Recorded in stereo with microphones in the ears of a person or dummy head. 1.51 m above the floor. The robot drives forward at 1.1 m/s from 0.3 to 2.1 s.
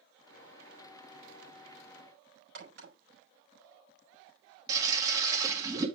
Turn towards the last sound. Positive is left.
turn(degrees=-25)  # may be behind; listen again after turning